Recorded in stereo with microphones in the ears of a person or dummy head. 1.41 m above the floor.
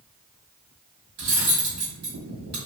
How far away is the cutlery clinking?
About 1.5 m.